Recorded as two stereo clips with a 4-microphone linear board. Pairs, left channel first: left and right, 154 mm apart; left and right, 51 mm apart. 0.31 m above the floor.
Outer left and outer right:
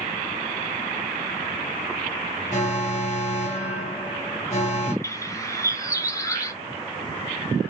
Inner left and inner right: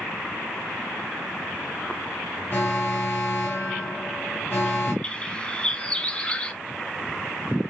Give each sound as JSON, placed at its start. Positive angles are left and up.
{"t": 2.5, "sound": "an alarm", "side_deg": 50, "distance_m": 2.0}
{"t": 5.0, "sound": "a bird", "side_deg": 20, "distance_m": 0.6}